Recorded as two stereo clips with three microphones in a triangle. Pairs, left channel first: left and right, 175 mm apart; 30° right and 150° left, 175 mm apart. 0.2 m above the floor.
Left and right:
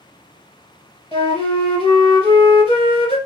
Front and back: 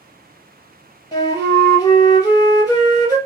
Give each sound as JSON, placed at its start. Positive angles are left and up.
{"t": 1.1, "sound": "a flute", "azimuth_deg": 35, "distance_m": 1.4}